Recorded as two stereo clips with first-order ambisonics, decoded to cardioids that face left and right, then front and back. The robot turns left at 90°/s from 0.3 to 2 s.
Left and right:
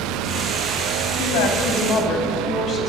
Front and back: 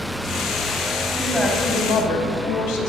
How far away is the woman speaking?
About 5 m.